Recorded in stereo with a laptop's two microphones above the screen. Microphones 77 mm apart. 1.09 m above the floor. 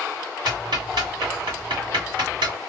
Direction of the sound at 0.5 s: 80° right.